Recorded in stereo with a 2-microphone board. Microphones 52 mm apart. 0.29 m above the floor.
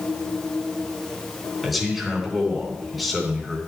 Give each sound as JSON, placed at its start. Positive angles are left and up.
{"t": 1.6, "sound": "a man speaking", "side_deg": 0, "distance_m": 3.0}